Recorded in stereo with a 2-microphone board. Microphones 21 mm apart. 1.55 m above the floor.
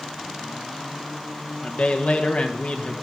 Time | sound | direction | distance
1.6 | a man speaking | 60° left (ahead or behind) | 1.6 m